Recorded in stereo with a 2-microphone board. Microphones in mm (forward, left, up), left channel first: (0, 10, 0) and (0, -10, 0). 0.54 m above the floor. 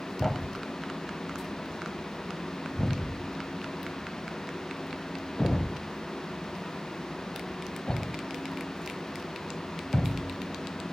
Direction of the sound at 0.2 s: 40° left (ahead or behind).